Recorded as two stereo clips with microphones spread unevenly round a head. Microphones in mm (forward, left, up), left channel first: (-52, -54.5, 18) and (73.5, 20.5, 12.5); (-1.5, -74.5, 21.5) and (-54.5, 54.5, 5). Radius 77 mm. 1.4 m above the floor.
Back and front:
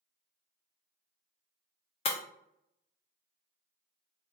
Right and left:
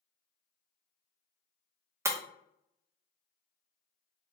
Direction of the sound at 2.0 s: Straight behind.